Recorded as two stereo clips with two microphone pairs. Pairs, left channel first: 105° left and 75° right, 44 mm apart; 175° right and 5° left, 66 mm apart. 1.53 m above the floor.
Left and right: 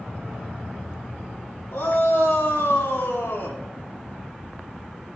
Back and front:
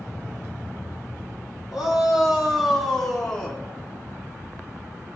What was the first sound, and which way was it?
A shout, 90° left.